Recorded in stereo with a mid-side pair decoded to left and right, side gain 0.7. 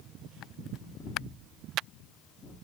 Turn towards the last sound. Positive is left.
turn(degrees=30)